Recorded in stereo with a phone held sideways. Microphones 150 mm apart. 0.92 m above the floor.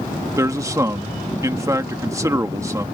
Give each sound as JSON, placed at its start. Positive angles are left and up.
{"t": 0.4, "sound": "a man speaking", "side_deg": -20}